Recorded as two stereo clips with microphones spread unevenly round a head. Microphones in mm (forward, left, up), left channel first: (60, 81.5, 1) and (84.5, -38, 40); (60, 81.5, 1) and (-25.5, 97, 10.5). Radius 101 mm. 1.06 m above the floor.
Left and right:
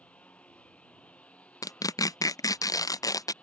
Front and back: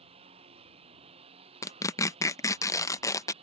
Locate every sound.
0.0 s a lawn mower: 175° right
1.6 s tearing paper: 45° left